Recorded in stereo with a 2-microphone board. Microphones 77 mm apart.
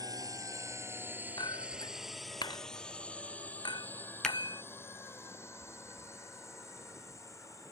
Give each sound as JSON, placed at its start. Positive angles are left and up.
{"t": 0.0, "sound": "a drone", "side_deg": -55}
{"t": 1.4, "sound": "a clink", "side_deg": 65}
{"t": 4.2, "sound": "a finger snap", "side_deg": 5}